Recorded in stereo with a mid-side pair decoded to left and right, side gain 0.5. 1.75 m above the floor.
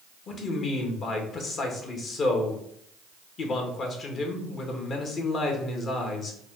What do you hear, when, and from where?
0.3 s a man speaking: 50° left, 1.5 m